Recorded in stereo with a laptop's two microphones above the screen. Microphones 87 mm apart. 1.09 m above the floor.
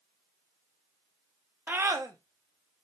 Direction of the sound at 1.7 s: 20° right (ahead or behind).